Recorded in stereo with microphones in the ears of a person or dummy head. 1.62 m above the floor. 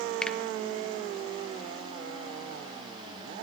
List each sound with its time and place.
0.2 s a finger snap: 5° left (ahead or behind), 0.7 m